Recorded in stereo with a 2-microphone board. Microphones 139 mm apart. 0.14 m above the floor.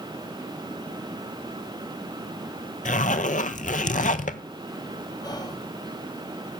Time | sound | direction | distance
2.9 | a zipper | 70° left (ahead or behind) | 0.7 m
5.2 | whispering | 30° left (ahead or behind) | 3 m